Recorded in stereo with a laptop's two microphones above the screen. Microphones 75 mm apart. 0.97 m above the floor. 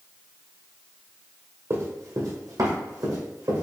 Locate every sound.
1.7 s running footsteps: 45° right (ahead or behind), 1.3 m; by 3.6 s 60° right (ahead or behind), 2.5 m